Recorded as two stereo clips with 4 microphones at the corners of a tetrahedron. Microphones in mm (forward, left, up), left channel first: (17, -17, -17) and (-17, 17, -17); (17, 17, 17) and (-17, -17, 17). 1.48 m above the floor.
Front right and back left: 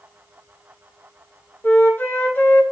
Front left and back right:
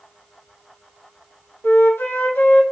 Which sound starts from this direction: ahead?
A flute, at 1.6 s.